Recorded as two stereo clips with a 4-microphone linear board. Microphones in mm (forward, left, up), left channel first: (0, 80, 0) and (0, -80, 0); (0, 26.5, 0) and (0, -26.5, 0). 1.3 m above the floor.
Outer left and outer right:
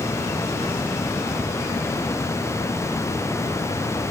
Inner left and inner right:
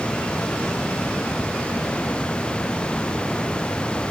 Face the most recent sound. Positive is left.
No sound to turn to.